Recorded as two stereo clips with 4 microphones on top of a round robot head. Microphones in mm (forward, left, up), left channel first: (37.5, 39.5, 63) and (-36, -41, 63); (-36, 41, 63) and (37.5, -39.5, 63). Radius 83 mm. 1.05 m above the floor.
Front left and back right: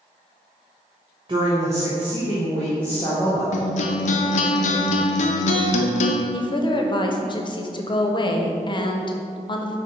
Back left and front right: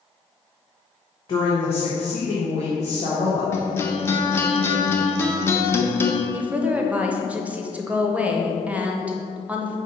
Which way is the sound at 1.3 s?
Straight behind.